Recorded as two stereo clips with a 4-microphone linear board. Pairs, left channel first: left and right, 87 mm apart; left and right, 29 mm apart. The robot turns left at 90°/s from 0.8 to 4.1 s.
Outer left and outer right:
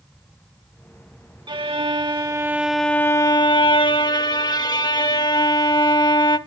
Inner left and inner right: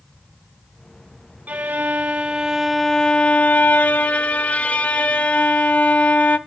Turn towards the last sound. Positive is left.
turn(degrees=60)